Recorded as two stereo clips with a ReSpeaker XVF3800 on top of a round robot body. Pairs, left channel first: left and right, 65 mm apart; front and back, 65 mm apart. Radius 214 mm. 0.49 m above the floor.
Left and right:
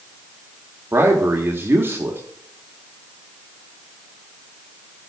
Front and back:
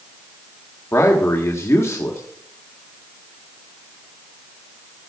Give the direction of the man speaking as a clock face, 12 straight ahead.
1 o'clock.